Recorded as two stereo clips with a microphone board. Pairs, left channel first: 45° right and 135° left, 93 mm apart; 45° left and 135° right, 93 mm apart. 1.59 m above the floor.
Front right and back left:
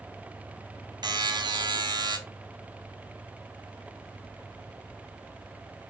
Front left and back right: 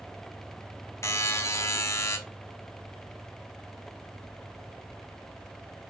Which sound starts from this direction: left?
A buzzer, at 1.0 s.